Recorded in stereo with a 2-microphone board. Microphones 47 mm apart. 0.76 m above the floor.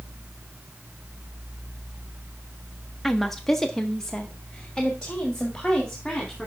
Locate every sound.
3.0 s a woman speaking: centre (ahead or behind), 0.9 m; by 6.5 s 15° left (ahead or behind), 2 m